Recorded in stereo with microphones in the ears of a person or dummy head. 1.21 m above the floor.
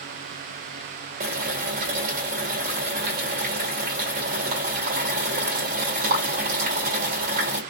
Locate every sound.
1.2 s boiling: 55° right (ahead or behind), 2 m